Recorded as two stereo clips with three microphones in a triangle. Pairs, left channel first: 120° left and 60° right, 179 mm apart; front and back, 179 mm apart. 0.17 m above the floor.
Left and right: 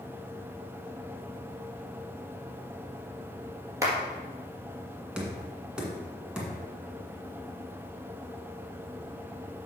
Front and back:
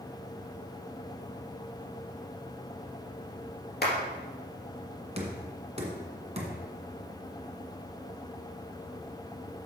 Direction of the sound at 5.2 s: 145° right.